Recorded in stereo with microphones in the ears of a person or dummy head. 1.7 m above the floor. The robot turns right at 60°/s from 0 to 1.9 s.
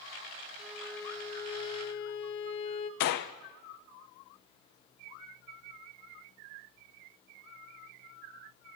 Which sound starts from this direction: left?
A gunshot, at 3.0 s.